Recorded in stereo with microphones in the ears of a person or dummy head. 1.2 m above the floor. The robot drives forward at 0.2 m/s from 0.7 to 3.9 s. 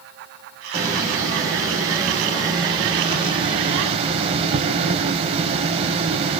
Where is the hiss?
15° right (ahead or behind), 1.2 m; by 6.4 s 35° right (ahead or behind), 0.7 m.